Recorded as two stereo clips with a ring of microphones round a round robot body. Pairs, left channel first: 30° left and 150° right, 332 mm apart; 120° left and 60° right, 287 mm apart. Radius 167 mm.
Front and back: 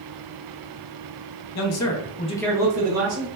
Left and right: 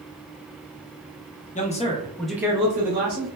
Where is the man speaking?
60° left, 0.8 m; by 3.3 s 110° right, 0.8 m.